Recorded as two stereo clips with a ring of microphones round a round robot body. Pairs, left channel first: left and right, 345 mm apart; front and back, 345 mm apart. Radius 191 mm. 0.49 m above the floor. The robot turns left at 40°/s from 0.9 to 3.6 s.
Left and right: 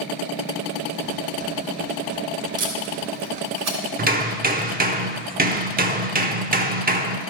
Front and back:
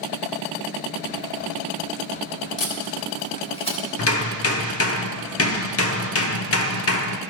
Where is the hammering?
35° right, 0.9 m.